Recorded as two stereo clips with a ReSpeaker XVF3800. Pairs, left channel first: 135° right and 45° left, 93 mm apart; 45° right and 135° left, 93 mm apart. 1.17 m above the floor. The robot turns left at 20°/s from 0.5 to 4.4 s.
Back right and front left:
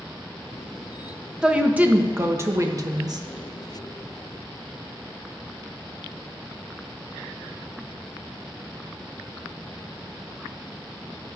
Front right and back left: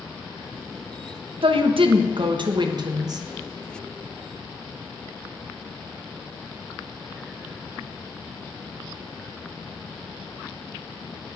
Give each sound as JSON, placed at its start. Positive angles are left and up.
{"t": 1.4, "sound": "a woman speaking", "azimuth_deg": 125, "distance_m": 0.8}